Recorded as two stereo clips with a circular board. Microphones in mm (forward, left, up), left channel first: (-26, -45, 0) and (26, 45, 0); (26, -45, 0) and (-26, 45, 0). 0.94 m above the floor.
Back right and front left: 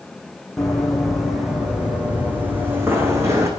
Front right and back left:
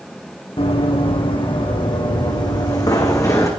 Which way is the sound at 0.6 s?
35° right.